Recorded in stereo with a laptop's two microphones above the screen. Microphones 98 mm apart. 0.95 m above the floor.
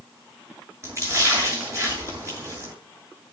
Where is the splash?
30° right (ahead or behind), 8 m.